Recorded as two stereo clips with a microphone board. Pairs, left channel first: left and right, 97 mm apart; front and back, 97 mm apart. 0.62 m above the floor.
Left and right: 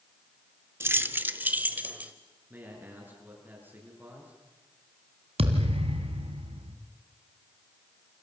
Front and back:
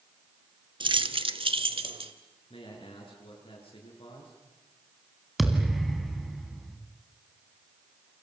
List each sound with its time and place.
0.8 s keys jangling: 155° right, 0.8 m; by 2.1 s 165° right, 1.7 m
2.5 s a man speaking: 20° right, 8.5 m
5.4 s a thud: 90° right, 2 m